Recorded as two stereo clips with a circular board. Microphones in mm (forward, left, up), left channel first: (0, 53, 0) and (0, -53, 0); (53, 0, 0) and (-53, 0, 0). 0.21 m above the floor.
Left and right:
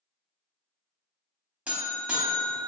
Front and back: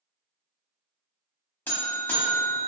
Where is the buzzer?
35° right, 0.7 m.